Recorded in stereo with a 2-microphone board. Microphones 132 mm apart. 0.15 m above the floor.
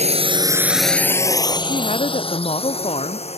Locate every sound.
0.0 s a drone: 55° right (ahead or behind); by 3.4 s 50° left (ahead or behind)
1.6 s a woman speaking: 50° left (ahead or behind)